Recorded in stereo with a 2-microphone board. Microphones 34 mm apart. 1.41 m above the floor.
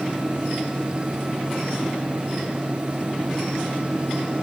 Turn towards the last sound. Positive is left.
No sound to turn to.